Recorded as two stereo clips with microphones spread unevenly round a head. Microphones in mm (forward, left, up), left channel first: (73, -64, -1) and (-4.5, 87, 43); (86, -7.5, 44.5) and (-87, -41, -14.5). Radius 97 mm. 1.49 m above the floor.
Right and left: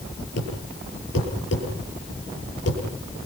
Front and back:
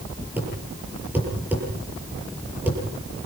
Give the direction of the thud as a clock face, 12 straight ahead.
3 o'clock.